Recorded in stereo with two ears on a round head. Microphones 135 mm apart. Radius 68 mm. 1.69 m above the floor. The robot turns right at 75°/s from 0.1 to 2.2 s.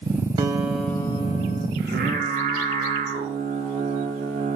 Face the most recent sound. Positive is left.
turn(degrees=-45)